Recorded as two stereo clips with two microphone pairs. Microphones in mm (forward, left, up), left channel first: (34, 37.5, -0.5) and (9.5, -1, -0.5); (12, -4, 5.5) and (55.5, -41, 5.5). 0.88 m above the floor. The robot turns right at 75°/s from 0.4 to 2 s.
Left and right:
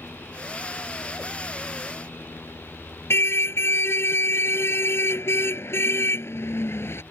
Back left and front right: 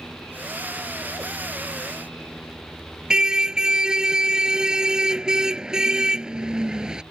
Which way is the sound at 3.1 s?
35° left.